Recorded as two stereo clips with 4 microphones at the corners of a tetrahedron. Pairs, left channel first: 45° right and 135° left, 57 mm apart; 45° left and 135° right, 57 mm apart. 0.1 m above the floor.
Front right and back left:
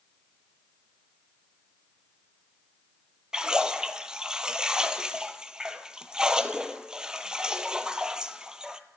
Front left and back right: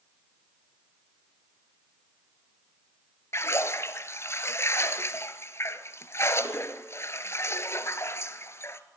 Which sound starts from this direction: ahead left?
A splash, at 3.3 s.